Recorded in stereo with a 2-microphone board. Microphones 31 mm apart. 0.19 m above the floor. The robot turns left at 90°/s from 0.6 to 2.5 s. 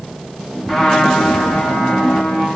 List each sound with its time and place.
0.7 s a trumpet: straight behind, 9.5 m; by 2.5 s 20° left, 9.5 m